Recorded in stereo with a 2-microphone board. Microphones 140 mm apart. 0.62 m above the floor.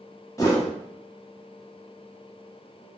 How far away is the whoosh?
About 1.1 m.